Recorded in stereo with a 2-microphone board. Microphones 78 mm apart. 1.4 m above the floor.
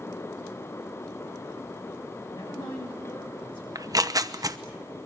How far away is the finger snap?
I don't hear a finger snap.